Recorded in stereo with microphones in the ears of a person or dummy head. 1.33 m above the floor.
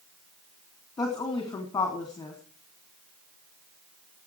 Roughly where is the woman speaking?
Centre.